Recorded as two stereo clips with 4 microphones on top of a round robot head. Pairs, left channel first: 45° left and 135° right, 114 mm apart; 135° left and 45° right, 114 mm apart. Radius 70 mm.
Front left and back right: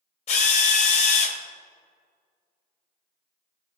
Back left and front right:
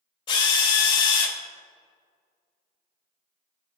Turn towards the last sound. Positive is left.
turn(degrees=85)